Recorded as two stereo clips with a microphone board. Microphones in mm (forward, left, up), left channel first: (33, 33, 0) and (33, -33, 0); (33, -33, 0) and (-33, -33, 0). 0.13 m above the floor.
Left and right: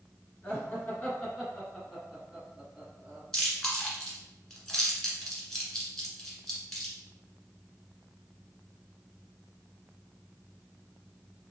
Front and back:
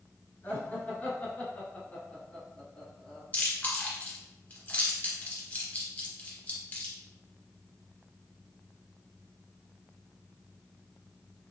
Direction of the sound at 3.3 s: 15° left.